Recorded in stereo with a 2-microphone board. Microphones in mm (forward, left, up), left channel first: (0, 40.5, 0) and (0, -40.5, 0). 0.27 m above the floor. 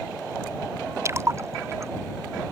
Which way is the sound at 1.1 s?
35° right (ahead or behind).